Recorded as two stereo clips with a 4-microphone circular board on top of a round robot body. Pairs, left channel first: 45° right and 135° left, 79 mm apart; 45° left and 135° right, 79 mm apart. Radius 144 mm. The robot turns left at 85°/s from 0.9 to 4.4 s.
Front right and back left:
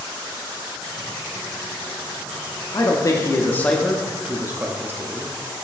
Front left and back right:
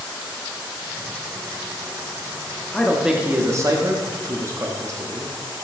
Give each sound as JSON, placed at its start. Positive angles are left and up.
{"t": 2.7, "sound": "a man speaking", "azimuth_deg": -30, "distance_m": 0.9}